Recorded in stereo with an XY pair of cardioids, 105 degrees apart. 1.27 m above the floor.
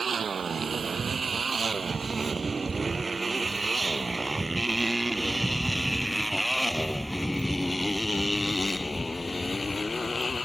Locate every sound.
0.0 s a motorcycle: 35° right; by 10.4 s 30° left